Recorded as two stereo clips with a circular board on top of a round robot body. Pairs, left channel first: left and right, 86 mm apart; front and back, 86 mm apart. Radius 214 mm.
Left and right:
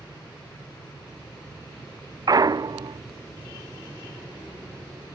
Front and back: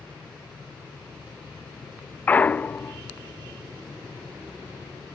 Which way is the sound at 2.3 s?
65° right.